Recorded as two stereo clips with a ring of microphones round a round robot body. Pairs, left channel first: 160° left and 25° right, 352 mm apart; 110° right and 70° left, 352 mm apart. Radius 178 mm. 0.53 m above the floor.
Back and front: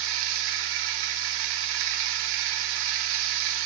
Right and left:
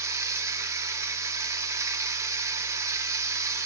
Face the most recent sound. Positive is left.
turn(degrees=-15)